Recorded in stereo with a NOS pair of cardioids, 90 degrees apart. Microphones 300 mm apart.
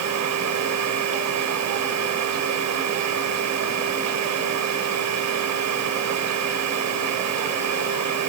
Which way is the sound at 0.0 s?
65° right.